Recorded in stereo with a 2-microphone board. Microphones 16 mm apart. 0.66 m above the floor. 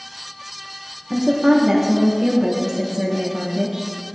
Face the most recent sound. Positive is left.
turn(degrees=-25)  # may be behind; listen again after turning